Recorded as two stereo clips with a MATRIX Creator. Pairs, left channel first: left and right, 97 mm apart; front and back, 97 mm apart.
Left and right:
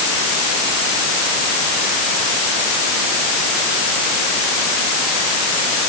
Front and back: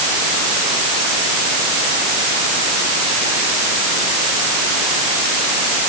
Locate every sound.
Only background noise.